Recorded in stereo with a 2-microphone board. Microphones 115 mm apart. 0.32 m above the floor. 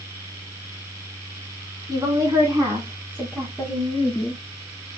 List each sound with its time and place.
1.9 s a woman speaking: 35° right (ahead or behind), 3 m; by 4.4 s 15° left (ahead or behind), 3 m